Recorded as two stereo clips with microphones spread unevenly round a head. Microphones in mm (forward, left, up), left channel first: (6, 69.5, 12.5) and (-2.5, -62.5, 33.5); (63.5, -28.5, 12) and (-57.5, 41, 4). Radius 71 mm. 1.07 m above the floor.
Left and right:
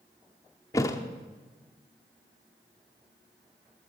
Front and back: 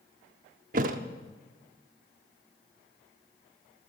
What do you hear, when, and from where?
0.7 s a thud: 160° left, 0.8 m